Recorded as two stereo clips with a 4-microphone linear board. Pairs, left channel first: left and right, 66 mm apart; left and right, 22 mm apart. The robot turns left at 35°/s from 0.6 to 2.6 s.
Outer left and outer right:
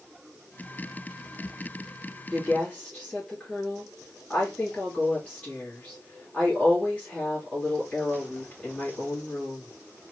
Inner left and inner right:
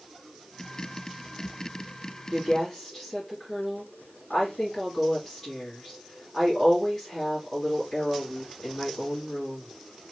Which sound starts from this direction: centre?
A woman speaking, at 2.3 s.